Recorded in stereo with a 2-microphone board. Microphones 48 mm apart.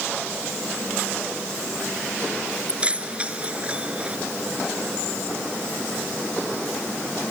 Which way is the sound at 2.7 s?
25° right (ahead or behind).